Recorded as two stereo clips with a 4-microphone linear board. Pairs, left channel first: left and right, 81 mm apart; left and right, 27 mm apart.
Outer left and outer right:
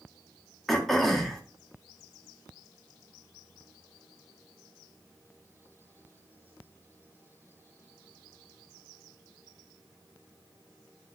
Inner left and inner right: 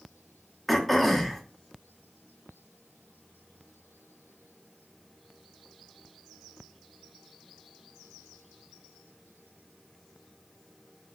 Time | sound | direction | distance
0.7 | throat clearing | 5° left (ahead or behind) | 0.7 m